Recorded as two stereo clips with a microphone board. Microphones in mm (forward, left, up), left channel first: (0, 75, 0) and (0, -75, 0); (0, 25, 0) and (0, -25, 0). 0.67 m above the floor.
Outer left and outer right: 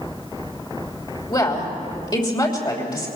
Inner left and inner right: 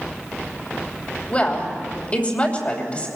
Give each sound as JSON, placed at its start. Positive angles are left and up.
{"t": 1.3, "sound": "a woman speaking", "side_deg": 30, "distance_m": 3.0}